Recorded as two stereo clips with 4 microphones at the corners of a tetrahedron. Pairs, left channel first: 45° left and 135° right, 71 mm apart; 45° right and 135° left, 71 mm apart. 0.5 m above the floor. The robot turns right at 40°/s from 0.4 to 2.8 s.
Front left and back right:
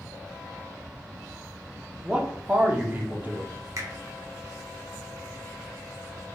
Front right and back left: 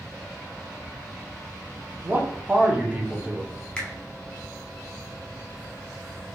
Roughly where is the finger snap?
Behind right.